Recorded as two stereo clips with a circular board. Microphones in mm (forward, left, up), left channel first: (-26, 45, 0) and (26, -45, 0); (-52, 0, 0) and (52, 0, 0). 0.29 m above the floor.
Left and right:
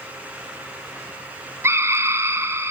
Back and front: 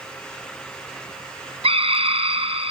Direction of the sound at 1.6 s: 5° left.